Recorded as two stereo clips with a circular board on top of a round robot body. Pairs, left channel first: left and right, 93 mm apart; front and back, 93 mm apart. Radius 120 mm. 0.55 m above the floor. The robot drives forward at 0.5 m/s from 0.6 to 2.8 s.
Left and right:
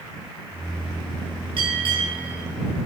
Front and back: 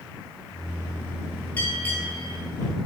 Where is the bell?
65° right, 3 m; by 2.4 s 75° right, 3 m.